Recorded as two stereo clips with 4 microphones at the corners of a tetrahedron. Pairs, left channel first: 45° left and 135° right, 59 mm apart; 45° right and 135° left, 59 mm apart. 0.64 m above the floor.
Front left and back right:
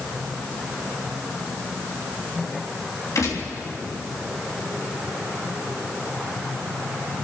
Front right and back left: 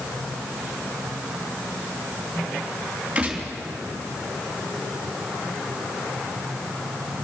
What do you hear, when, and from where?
3.1 s a gunshot: 65° left, 3 m